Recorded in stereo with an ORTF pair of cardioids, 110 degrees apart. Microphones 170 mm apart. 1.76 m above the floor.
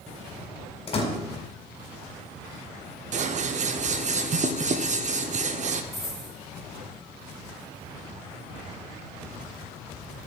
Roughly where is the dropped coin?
Ahead.